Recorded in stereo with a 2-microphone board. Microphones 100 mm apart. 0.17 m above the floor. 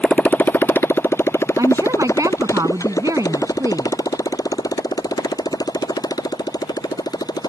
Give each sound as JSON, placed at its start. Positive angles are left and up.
{"t": 0.0, "sound": "a motorcycle", "side_deg": 15}
{"t": 1.6, "sound": "a woman speaking", "side_deg": -35}